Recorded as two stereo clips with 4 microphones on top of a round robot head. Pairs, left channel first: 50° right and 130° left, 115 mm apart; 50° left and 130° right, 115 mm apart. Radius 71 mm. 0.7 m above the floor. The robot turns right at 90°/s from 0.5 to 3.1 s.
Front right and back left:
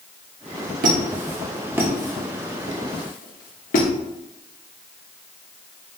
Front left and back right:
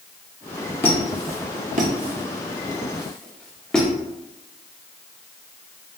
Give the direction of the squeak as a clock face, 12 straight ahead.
8 o'clock.